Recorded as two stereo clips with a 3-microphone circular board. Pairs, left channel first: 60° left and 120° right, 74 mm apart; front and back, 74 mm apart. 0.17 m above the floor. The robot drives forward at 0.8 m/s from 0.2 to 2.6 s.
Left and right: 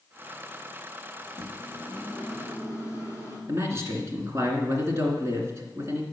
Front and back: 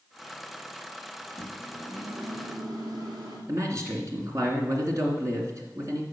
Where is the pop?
I don't hear a pop.